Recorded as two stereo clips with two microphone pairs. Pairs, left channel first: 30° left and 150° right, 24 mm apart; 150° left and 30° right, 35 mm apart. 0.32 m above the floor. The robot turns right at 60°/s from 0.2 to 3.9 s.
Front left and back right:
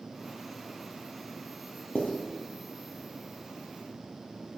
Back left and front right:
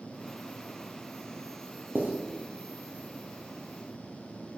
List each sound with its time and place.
1.9 s writing: 5° right, 2.5 m; by 2.1 s 5° left, 2.5 m